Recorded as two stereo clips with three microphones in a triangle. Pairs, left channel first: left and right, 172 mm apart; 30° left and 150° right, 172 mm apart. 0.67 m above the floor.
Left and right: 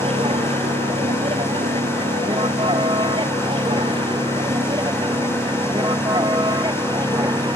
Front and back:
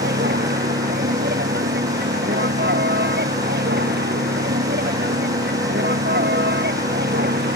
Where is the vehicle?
145° right; by 7.6 s 155° right.